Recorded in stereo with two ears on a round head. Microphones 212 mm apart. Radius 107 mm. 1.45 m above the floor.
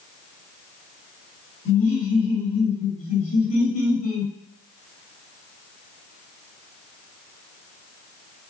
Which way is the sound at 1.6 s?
60° left (ahead or behind).